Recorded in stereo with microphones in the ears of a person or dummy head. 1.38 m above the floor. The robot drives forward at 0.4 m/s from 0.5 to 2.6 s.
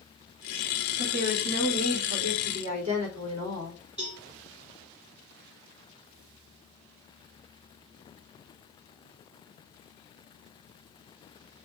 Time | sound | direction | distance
1.0 | a woman speaking | 40° right (ahead or behind) | 3 m
4.0 | a cowbell | 30° right (ahead or behind) | 4.5 m